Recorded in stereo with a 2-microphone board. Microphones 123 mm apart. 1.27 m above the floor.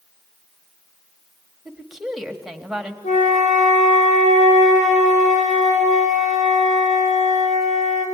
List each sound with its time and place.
1.6 s a woman speaking: 5° right (ahead or behind), 1.7 m
3.0 s a flute: 70° left (ahead or behind), 5 m